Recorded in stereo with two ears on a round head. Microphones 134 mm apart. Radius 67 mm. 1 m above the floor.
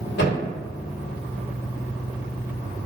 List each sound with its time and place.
0.2 s a thud: 75° left (ahead or behind), 1.3 m